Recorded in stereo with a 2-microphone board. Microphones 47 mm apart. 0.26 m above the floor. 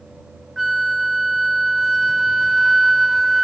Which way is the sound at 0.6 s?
5° right (ahead or behind).